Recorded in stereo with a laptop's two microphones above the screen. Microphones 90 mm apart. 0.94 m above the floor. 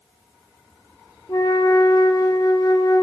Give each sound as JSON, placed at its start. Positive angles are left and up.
{"t": 1.3, "sound": "a flute", "side_deg": 40, "distance_m": 0.6}